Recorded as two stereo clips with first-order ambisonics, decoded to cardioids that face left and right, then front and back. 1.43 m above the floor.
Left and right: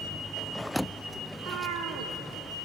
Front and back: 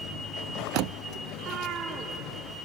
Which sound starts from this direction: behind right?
A cat meowing, at 1.3 s.